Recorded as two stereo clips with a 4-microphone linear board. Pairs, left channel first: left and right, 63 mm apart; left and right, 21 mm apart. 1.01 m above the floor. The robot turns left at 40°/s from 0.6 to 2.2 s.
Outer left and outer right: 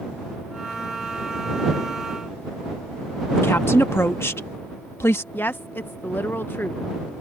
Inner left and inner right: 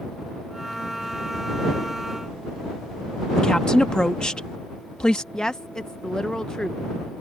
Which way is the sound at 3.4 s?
40° left (ahead or behind).